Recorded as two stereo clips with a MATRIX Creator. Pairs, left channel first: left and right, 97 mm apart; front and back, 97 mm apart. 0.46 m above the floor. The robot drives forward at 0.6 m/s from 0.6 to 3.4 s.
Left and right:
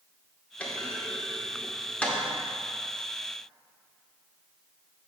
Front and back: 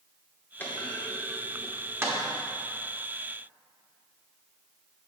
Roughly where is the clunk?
Ahead left.